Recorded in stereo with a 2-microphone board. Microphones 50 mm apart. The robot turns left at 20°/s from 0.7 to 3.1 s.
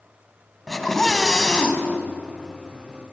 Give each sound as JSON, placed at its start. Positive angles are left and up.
{"t": 0.7, "sound": "a scream", "side_deg": 0, "distance_m": 2.5}